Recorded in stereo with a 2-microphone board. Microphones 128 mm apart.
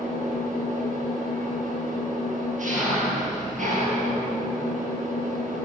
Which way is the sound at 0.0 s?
70° right (ahead or behind).